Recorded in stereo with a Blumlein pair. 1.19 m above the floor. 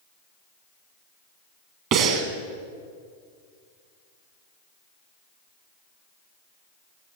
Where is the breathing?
40° right, 1.3 m.